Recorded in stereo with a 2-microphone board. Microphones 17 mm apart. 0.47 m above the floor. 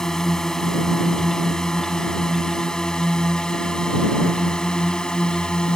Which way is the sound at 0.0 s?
25° left (ahead or behind).